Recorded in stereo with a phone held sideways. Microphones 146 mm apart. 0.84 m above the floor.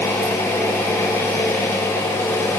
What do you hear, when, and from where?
0.0 s an engine running: 20° left (ahead or behind), 4.5 m